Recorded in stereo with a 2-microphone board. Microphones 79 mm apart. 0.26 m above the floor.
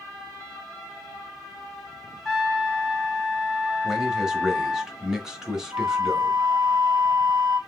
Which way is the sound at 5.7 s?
50° right (ahead or behind).